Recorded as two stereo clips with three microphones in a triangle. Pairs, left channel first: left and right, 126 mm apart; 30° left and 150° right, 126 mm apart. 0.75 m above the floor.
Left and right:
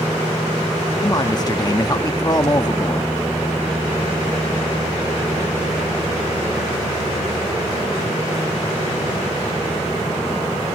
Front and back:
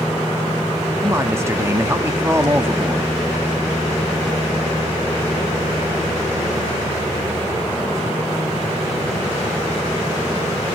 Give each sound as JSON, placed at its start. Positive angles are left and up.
{"t": 1.0, "sound": "a man speaking", "azimuth_deg": 145, "distance_m": 0.9}